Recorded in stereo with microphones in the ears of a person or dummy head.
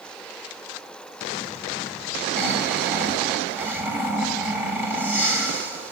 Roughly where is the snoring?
Centre.